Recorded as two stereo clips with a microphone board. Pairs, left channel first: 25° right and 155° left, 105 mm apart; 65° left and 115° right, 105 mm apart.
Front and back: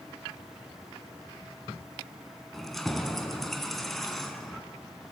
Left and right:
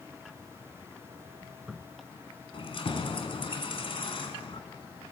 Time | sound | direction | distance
2.5 | keys jangling | 65° left | 1.7 m